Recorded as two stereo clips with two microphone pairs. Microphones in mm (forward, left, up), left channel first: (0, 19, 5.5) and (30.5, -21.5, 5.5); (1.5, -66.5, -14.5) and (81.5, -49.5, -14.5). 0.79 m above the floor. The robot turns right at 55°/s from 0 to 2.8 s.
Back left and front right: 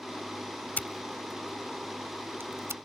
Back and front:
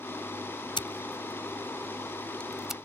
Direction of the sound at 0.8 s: Straight behind.